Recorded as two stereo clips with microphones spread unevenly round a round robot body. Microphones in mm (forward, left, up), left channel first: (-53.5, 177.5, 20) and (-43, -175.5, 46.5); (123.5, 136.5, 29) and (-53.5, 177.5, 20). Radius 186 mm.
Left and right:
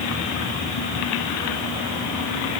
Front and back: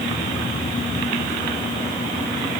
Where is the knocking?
I don't hear knocking.